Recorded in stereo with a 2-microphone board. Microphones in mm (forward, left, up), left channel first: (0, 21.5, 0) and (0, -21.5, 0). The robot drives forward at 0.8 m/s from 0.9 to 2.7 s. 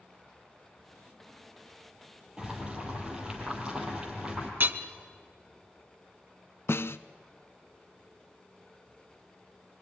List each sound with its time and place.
2.4 s boiling: 20° right (ahead or behind), 4.5 m
4.6 s hammering: 50° right (ahead or behind), 1.1 m
6.7 s a snare drum: 65° left (ahead or behind), 0.6 m